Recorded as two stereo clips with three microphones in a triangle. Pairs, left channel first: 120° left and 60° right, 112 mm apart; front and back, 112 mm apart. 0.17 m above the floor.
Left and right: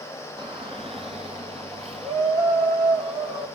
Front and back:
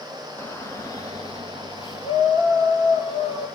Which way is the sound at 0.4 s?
60° right.